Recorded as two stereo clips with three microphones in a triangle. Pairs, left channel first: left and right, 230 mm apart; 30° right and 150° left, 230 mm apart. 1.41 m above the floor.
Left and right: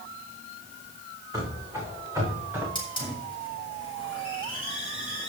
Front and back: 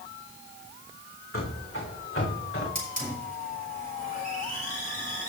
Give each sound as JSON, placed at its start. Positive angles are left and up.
{"t": 1.3, "sound": "running footsteps", "azimuth_deg": -15, "distance_m": 5.0}
{"t": 2.8, "sound": "a hiss", "azimuth_deg": 20, "distance_m": 4.0}